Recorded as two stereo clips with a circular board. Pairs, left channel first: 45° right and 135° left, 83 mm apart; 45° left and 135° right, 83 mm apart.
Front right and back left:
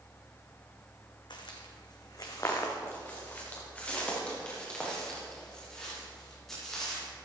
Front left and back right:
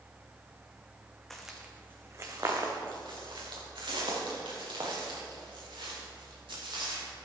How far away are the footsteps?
About 1.8 m.